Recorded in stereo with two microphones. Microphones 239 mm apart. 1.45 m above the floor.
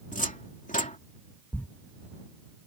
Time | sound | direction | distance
0.1 | a cupboard door | 30° left (ahead or behind) | ?
1.5 | a thud | 5° left (ahead or behind) | ?